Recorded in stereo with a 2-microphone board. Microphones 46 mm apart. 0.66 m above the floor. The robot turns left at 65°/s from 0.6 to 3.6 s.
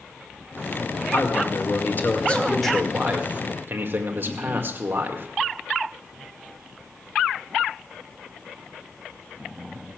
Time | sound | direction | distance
1.1 | a man speaking | 105° left | 1.8 m